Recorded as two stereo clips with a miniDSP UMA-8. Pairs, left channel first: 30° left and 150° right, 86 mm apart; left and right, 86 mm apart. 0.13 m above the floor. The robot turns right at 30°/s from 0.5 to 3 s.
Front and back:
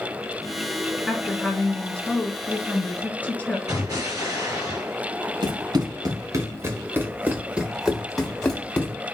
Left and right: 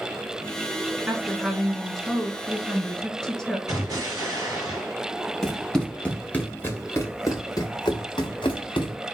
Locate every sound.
1.1 s a woman speaking: 40° right, 1.1 m; by 3.6 s 20° left, 1.1 m
3.7 s an explosion: 125° right, 2.5 m
5.4 s running footsteps: straight behind, 1.6 m; by 8.9 s 100° left, 1.5 m